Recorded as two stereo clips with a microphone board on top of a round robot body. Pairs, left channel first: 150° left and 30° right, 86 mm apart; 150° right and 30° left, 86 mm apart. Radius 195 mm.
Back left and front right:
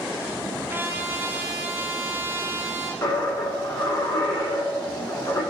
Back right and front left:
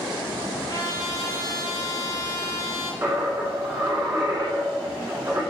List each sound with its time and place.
0.7 s a trumpet: 100° right, 0.7 m
3.0 s a dropped coin: 100° left, 1.3 m